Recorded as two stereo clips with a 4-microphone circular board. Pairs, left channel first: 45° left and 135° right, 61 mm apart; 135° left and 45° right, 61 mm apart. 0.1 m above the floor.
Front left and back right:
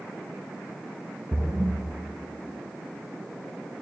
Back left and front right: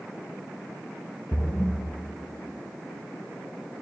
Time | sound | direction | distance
1.3 | a splash | 165° left | 1.4 m